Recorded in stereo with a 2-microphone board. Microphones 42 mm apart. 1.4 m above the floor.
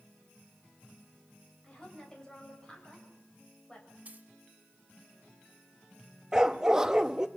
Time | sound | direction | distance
1.6 | a woman speaking | 20° left (ahead or behind) | 6.5 m
4.0 | a dropped coin | 40° right (ahead or behind) | 1.8 m
6.3 | a dog barking | 15° right (ahead or behind) | 0.8 m